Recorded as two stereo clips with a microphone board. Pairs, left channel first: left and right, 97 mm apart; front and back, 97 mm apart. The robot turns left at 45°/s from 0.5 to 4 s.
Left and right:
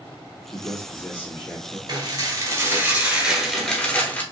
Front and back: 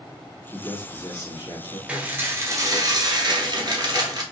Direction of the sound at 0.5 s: 60° left.